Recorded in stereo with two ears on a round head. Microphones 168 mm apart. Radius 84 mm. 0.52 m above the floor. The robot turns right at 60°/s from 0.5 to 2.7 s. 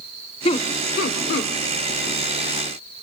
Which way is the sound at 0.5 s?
30° left (ahead or behind).